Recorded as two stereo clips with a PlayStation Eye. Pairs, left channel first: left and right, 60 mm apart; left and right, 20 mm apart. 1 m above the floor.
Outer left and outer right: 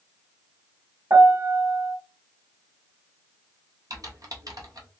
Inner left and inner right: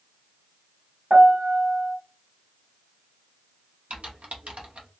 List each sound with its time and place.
1.1 s a piano: 60° right (ahead or behind), 1.4 m
3.9 s typing on a keyboard: 90° right, 0.7 m